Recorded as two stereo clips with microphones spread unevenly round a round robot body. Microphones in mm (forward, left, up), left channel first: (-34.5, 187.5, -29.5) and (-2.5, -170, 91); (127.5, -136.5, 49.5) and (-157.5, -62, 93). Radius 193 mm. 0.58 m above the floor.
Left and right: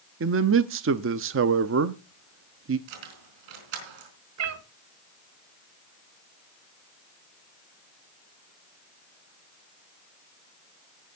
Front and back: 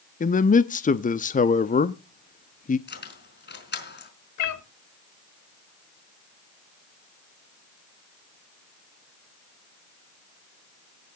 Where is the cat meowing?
30° right, 1.6 m.